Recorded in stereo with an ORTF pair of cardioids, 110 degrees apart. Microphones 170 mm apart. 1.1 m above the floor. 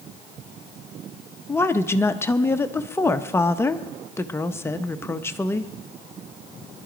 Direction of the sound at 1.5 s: 15° left.